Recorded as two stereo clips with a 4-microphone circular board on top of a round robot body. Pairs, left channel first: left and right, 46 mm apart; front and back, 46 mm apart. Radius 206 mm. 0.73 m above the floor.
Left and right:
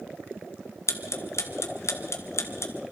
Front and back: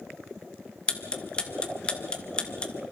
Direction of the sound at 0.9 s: 70° left.